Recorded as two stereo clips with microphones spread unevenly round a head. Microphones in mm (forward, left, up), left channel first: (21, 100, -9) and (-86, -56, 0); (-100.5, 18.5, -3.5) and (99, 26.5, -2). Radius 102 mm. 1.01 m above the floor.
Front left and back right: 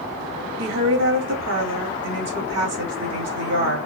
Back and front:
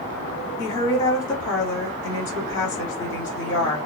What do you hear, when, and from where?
0.6 s a woman speaking: 105° right, 2.5 m